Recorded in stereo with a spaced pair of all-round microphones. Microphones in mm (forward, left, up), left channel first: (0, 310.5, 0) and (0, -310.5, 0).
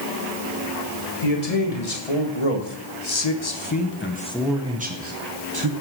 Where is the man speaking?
70° left (ahead or behind), 2 m; by 5.7 s 40° right (ahead or behind), 1.2 m.